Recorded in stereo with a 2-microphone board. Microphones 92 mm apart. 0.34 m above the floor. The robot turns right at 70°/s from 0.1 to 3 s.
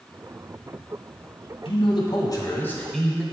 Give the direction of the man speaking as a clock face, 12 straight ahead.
9 o'clock.